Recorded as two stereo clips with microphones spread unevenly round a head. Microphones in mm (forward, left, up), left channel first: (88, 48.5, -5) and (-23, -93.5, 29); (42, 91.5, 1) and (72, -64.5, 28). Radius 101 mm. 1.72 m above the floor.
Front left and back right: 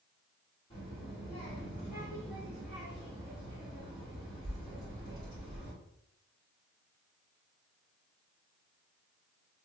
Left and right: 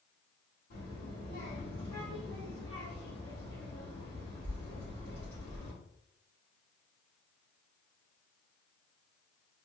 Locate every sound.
0.7 s a child speaking: 125° left, 2 m